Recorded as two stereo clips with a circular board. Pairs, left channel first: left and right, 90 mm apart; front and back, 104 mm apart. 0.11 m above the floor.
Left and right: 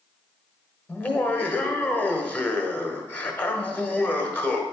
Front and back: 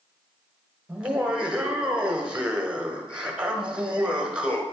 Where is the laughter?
120° left, 1.1 m.